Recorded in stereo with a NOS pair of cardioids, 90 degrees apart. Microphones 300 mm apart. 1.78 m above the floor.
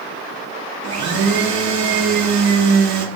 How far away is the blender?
About 0.8 m.